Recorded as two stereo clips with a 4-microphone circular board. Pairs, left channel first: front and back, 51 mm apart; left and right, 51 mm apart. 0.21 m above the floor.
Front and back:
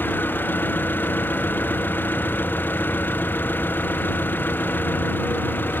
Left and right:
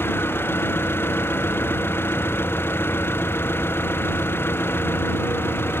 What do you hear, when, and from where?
0.0 s an engine running: 45° left